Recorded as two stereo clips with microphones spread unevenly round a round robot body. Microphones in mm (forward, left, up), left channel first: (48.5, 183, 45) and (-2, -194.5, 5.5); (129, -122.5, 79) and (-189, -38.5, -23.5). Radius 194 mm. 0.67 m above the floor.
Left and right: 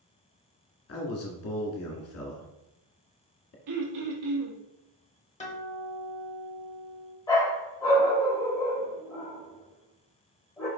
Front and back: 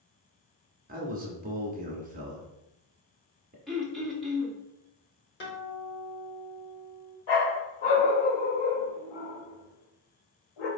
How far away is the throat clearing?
About 1.1 m.